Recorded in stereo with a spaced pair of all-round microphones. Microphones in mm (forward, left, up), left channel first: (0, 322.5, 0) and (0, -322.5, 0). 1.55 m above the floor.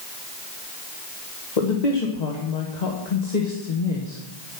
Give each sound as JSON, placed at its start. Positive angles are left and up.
{"t": 1.6, "sound": "a woman speaking", "side_deg": 80, "distance_m": 1.5}